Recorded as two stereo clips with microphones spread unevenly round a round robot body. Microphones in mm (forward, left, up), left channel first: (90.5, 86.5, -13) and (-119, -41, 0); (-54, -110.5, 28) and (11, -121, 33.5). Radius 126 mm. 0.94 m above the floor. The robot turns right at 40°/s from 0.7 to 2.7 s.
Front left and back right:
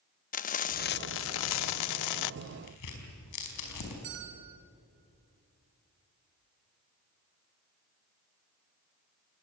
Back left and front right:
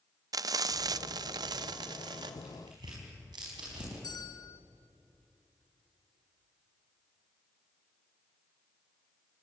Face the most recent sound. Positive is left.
turn(degrees=-170)